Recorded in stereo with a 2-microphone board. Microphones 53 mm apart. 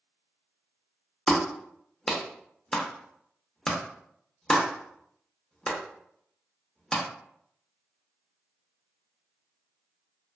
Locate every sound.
1.3 s a clap: 10° left (ahead or behind), 0.6 m